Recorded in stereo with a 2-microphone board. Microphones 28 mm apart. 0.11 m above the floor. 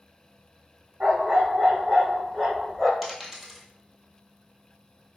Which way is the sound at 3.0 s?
5° right (ahead or behind).